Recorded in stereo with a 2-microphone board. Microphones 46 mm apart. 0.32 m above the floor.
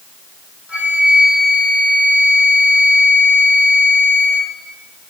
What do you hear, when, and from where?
0.7 s a flute: 20° right (ahead or behind), 7 m